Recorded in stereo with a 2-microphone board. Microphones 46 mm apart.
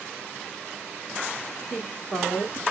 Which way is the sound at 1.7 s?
20° left (ahead or behind).